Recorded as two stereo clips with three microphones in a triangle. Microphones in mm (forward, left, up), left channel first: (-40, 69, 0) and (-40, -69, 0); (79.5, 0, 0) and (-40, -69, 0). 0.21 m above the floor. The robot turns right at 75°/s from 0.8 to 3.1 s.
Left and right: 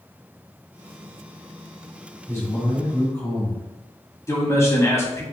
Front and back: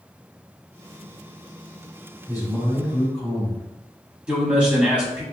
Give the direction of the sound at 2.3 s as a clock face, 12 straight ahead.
11 o'clock.